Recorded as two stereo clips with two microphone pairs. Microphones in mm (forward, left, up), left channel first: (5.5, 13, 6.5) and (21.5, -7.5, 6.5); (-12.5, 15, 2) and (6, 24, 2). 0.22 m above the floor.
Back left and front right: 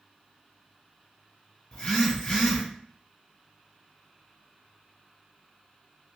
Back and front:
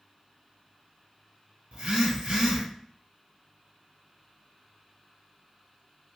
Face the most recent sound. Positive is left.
turn(degrees=70)